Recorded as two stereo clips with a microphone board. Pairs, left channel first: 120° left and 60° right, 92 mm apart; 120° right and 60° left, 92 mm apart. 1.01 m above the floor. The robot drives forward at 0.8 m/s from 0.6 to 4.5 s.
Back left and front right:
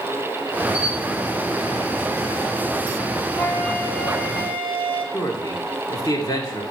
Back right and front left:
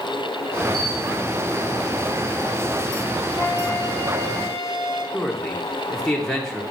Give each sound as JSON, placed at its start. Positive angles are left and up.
{"t": 0.7, "sound": "a camera shutter", "azimuth_deg": -135, "distance_m": 1.7}
{"t": 3.4, "sound": "a flute", "azimuth_deg": -170, "distance_m": 1.4}
{"t": 5.1, "sound": "a man speaking", "azimuth_deg": 155, "distance_m": 1.5}